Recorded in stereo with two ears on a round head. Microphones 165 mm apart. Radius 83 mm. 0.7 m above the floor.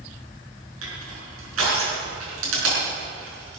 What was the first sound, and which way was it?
Crushing, 80° right.